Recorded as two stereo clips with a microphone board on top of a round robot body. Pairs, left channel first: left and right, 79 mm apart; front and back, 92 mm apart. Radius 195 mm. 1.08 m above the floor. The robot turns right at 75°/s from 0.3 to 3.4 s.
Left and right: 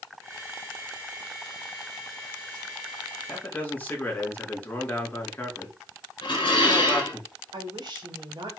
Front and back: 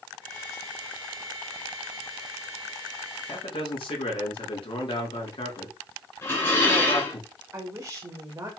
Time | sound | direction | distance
3.3 | a man speaking | 15° left | 3.5 m
6.2 | dishes clattering | 65° left | 3.5 m
7.5 | a woman speaking | 125° right | 2.5 m